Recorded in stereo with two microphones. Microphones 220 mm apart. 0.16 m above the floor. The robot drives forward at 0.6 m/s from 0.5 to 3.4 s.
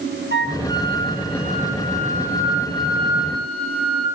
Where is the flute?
55° right (ahead or behind), 1.1 m; by 4.0 s 25° right (ahead or behind), 2.5 m.